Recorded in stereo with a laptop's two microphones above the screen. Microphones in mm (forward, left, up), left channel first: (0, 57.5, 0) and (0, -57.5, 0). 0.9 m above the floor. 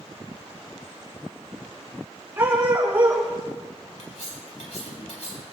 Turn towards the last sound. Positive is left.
turn(degrees=70)  # may be behind; listen again after turning